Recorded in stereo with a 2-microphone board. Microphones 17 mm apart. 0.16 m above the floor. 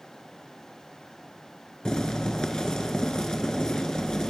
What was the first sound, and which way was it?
Boiling, 55° left (ahead or behind).